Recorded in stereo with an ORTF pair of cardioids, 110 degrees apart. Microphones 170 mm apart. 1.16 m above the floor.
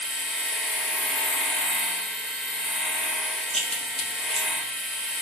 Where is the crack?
Straight ahead, 1.0 m.